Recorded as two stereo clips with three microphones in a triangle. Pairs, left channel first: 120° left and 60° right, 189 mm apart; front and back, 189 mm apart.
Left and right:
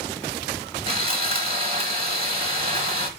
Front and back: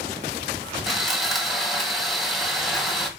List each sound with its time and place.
0.9 s sawing: 90° right, 1.6 m